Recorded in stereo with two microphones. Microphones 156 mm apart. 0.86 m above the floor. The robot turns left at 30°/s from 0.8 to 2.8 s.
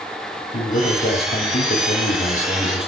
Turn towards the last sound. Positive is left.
turn(degrees=35)